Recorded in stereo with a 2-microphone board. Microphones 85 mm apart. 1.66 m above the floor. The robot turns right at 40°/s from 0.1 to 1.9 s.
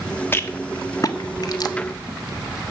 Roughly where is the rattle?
Left.